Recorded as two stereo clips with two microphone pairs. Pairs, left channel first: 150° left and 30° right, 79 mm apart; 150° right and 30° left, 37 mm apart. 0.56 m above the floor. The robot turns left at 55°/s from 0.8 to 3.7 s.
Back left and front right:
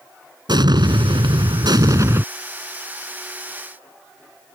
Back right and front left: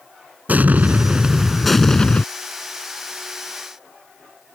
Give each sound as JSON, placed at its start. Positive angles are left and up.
{"t": 0.5, "sound": "an explosion", "azimuth_deg": -10}